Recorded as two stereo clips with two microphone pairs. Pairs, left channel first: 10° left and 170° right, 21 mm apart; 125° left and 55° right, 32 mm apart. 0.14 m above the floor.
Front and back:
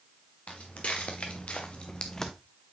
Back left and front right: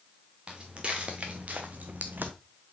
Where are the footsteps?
Straight ahead, 1.9 m; by 2.3 s 60° right, 0.7 m.